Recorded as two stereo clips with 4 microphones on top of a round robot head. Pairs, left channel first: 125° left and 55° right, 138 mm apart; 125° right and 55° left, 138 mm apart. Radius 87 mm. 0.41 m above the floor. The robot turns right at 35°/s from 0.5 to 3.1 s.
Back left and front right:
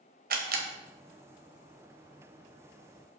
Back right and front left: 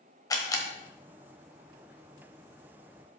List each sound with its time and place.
0.3 s a camera shutter: 60° right, 1.4 m; by 0.7 s 55° right, 1.4 m